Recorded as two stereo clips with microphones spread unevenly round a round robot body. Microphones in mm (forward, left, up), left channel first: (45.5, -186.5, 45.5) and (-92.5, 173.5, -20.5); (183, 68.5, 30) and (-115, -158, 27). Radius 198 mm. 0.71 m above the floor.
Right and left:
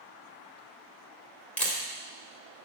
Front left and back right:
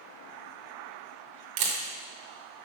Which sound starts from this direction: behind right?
A camera shutter, at 1.6 s.